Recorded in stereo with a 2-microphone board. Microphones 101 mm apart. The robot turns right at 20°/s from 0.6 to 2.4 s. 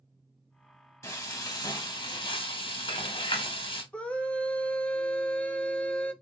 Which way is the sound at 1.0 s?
30° left (ahead or behind).